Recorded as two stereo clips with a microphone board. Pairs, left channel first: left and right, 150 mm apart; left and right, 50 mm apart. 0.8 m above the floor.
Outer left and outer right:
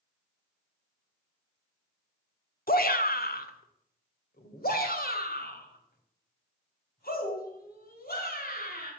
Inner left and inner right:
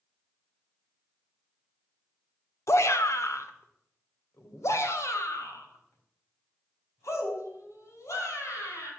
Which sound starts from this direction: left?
A shout, at 2.7 s.